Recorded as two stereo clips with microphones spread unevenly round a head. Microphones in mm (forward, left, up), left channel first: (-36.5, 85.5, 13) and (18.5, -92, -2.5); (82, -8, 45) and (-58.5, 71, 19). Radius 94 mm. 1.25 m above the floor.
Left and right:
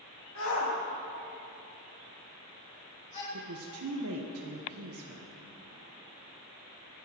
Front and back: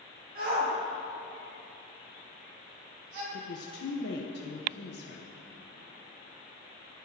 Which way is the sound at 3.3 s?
65° right.